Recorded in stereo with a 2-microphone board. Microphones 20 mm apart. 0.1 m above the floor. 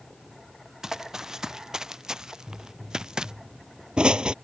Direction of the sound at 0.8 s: 25° right (ahead or behind).